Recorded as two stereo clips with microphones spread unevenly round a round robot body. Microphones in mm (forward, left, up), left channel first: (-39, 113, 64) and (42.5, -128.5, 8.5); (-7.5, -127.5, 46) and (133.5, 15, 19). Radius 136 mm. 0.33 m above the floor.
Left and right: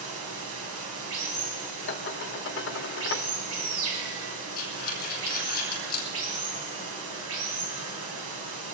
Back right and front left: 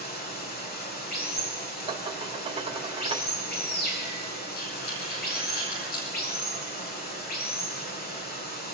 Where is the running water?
90° right, 2.5 m.